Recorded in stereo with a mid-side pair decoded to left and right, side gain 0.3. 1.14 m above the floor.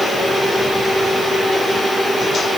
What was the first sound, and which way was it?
Only background noise.